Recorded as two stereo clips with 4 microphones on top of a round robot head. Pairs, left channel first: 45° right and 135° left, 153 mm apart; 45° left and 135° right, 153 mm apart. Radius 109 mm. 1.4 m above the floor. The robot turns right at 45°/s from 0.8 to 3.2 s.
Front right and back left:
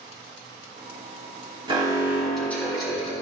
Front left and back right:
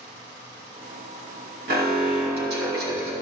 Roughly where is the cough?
I don't hear a cough.